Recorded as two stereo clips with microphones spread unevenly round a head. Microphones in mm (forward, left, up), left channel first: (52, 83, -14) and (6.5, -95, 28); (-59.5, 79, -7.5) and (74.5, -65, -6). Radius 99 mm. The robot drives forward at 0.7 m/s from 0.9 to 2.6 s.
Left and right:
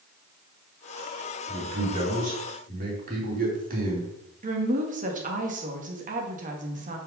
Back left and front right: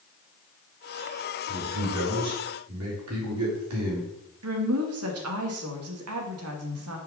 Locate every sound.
1.5 s a man speaking: 50° right, 4 m; by 4.1 s 60° right, 3.5 m
4.4 s a woman speaking: 60° right, 1.7 m